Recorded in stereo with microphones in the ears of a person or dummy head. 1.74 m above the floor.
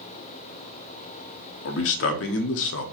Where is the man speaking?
65° left (ahead or behind), 0.9 m.